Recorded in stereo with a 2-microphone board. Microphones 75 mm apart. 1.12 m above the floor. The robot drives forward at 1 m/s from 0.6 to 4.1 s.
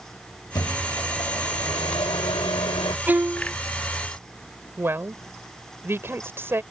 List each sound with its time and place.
0.6 s a microwave: 60° left (ahead or behind); by 3.0 s 80° left
3.1 s a violin: 25° right (ahead or behind); by 3.5 s 20° right (ahead or behind)
4.8 s a woman speaking: 30° right (ahead or behind)